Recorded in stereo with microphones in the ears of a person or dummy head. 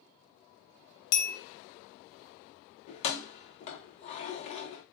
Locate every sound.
1.1 s a bell: 65° left (ahead or behind), 0.8 m
2.9 s keys jangling: 40° left (ahead or behind), 0.6 m